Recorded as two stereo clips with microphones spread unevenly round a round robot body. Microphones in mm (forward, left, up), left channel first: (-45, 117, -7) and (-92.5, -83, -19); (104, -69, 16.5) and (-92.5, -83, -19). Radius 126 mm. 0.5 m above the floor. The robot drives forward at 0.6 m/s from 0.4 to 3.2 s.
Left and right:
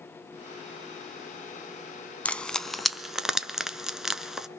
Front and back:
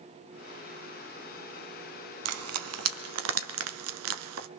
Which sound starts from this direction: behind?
Frying, at 2.2 s.